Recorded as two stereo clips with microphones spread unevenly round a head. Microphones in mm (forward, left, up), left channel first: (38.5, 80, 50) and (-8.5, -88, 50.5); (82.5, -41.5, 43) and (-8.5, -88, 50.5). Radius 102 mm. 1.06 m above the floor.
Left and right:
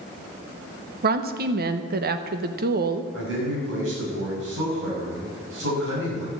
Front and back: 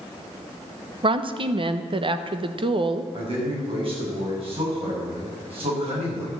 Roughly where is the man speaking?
Behind right.